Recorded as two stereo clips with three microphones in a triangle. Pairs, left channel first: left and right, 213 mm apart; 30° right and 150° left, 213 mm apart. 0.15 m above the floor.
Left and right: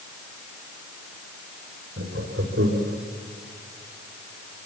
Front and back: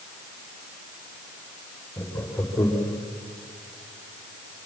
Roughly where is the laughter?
Right.